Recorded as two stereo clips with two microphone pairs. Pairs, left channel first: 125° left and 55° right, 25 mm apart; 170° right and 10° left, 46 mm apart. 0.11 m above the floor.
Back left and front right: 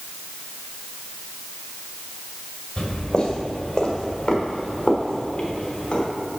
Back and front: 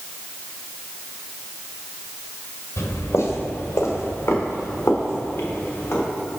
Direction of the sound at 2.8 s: Straight behind.